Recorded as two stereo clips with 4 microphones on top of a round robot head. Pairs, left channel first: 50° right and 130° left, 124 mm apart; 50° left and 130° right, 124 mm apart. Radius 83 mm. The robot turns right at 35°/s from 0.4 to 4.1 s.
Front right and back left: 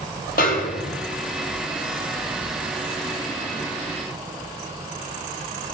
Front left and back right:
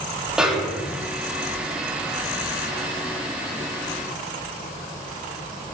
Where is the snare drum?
45° right, 1.6 m; by 1.0 s 25° right, 1.6 m.